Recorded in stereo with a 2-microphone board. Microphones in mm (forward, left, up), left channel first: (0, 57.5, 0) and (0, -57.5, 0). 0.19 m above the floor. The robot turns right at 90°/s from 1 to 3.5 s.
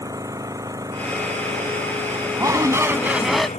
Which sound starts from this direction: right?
A shout, at 2.4 s.